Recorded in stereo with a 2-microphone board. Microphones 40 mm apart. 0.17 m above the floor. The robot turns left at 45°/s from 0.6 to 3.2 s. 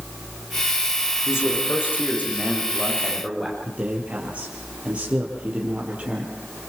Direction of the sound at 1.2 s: 85° left.